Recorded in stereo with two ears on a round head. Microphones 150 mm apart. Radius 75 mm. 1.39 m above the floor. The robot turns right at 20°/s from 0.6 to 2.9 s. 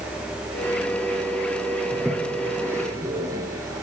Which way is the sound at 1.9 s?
Centre (ahead or behind).